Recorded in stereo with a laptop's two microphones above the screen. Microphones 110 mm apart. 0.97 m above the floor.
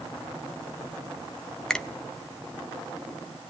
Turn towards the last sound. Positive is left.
turn(degrees=5)  # may be behind; listen again after turning